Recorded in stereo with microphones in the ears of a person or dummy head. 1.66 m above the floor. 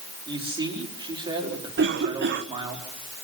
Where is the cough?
50° right (ahead or behind), 1.6 m.